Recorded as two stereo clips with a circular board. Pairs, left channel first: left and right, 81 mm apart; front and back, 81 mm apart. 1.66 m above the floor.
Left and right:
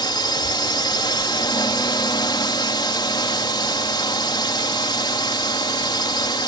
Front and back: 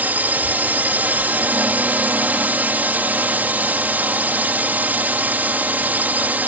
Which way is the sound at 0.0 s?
110° left.